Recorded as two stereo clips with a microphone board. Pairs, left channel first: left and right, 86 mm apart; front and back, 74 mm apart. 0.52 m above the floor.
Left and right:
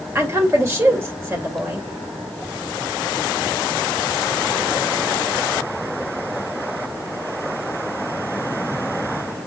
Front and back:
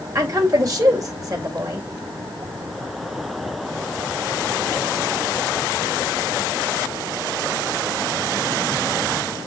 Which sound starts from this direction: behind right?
A woman speaking, at 0.1 s.